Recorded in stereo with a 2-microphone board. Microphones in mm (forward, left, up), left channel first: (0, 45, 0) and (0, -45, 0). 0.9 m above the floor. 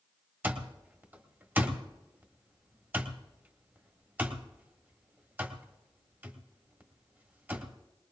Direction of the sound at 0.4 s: 20° right (ahead or behind).